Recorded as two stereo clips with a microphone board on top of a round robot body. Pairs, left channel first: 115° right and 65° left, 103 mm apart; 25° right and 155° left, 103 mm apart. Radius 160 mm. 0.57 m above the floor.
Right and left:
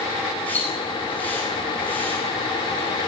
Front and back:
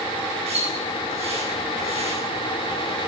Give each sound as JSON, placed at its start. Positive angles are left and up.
{"t": 0.5, "sound": "a splash", "azimuth_deg": 175, "distance_m": 8.5}